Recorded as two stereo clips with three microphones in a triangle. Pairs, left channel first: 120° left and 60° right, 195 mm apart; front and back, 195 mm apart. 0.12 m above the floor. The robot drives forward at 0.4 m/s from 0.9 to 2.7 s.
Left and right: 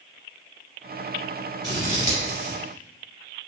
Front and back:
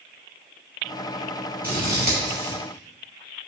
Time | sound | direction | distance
1.6 | scissors | 170° left | 2.0 m